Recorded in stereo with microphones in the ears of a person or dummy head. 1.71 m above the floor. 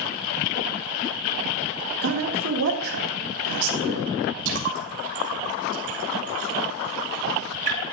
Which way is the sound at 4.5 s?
60° right (ahead or behind).